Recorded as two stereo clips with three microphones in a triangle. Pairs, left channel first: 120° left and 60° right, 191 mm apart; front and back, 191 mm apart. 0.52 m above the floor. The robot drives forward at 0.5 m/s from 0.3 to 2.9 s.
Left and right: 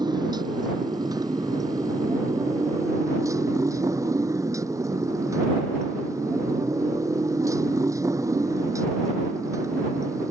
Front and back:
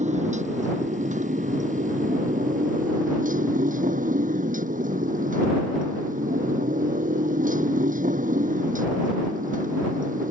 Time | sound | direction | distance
0.0 | a motorcycle | 130° right | ?